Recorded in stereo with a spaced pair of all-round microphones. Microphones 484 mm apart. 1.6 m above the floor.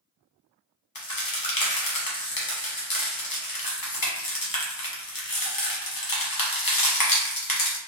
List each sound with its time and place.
0.9 s a crack: 45° left (ahead or behind), 0.8 m